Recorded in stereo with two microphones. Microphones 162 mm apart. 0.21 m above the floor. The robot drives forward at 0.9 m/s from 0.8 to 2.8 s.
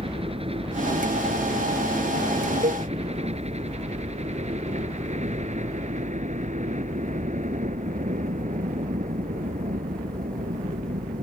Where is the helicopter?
35° right (ahead or behind); by 11.2 s 55° right (ahead or behind).